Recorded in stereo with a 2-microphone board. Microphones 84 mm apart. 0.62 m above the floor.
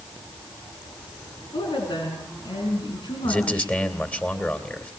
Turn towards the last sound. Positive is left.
turn(degrees=15)  # may be behind; listen again after turning